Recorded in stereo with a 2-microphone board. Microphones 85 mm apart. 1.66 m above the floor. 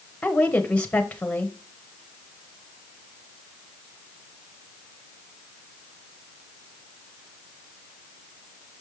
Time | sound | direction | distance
0.2 | a woman speaking | 15° left (ahead or behind) | 1.2 m